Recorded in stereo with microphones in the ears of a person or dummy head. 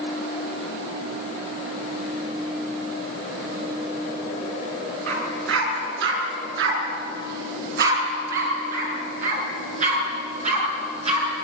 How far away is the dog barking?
About 5.5 m.